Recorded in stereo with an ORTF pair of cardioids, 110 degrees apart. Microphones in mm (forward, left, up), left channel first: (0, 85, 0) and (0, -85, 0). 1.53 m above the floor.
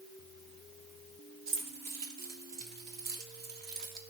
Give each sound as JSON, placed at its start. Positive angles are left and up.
{"t": 1.5, "sound": "keys jangling", "azimuth_deg": -65, "distance_m": 3.0}